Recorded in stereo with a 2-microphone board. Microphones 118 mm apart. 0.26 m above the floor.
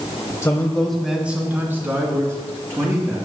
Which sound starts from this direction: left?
A man speaking, at 0.4 s.